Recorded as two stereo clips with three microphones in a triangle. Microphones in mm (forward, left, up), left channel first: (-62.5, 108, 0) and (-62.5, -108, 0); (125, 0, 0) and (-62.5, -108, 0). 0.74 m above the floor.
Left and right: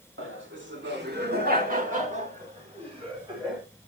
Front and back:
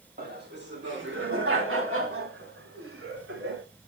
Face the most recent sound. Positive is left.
turn(degrees=-160)